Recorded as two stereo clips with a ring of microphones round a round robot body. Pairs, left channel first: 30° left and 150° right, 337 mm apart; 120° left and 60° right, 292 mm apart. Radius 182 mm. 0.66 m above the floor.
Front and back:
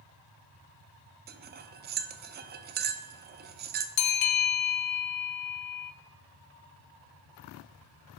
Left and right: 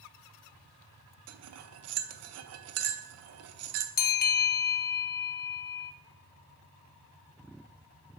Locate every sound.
1.3 s cutlery clinking: 90° right, 0.6 m
4.0 s a bell: 60° left, 0.6 m